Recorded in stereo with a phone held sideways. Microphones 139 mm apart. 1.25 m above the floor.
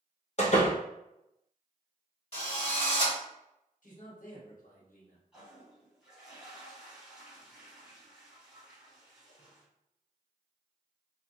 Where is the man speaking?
70° left (ahead or behind), 1.0 m.